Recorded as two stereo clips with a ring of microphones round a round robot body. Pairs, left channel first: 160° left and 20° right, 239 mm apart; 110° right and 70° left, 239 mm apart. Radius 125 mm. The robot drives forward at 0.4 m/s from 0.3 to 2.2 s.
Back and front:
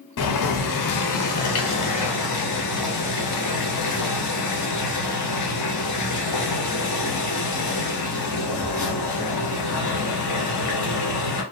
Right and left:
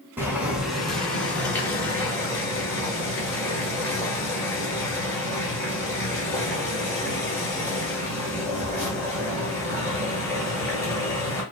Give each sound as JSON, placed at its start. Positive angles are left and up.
{"t": 0.2, "sound": "boiling", "azimuth_deg": 150, "distance_m": 0.5}